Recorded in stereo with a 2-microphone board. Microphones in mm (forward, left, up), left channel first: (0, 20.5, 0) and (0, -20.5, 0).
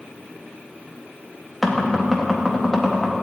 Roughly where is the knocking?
Centre.